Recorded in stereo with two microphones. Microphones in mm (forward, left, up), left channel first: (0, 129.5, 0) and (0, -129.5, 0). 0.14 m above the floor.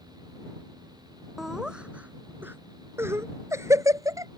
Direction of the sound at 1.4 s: Centre (ahead or behind).